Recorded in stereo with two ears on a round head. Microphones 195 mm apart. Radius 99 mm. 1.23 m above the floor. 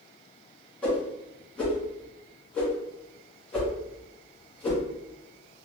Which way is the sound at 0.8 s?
5° left (ahead or behind).